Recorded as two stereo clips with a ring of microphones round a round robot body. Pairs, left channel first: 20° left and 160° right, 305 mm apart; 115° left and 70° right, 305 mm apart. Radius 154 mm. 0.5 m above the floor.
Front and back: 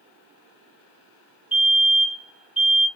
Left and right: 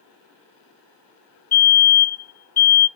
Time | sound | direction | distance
1.5 | a fire alarm | 115° left | 1.8 m